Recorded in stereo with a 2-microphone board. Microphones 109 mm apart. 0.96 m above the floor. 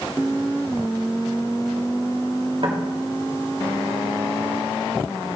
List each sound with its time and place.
2.6 s knocking: 50° right (ahead or behind), 1.8 m